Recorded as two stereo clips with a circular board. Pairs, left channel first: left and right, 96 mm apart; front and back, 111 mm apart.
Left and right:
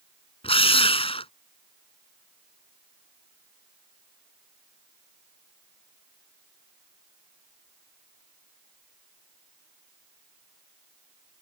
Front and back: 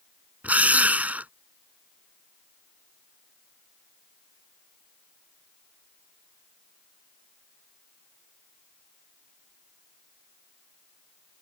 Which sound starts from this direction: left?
A drill, at 0.4 s.